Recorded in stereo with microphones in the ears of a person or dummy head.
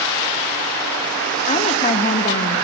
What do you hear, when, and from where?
1.5 s a woman speaking: 35° left (ahead or behind), 1.3 m